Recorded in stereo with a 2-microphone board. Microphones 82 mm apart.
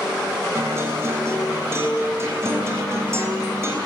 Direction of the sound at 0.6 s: 35° right (ahead or behind).